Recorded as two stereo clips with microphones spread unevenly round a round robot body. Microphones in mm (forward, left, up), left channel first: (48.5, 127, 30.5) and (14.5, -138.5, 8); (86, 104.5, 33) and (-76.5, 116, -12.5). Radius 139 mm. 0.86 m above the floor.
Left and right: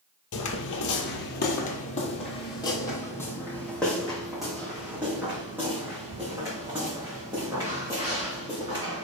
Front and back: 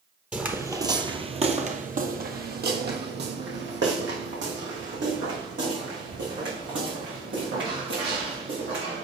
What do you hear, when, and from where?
0.3 s footsteps: 80° left, 1.2 m; by 9.1 s 175° right, 4.5 m